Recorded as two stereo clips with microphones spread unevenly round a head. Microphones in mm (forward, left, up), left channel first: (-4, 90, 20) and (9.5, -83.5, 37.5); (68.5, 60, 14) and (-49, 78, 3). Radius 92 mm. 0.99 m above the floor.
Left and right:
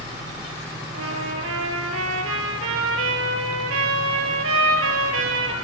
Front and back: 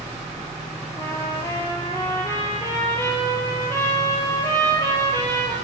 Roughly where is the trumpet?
Right.